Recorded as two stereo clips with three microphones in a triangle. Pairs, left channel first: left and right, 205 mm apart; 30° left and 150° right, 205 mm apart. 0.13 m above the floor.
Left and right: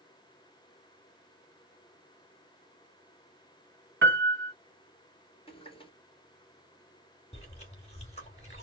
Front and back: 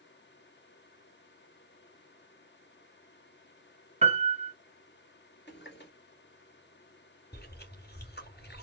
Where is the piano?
95° right, 1.0 m.